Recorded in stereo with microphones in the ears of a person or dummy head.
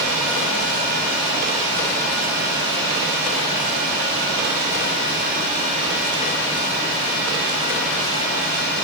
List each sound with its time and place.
Only background noise.